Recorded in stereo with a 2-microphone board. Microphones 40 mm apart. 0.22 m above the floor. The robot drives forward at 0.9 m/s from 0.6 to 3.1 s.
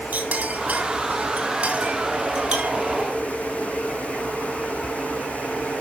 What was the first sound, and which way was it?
A clink, 40° right (ahead or behind).